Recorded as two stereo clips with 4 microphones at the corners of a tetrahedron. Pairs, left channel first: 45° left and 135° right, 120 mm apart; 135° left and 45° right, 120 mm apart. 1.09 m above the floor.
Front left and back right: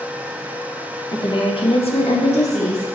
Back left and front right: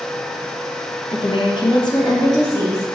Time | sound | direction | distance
1.1 | a woman speaking | 100° left | 0.9 m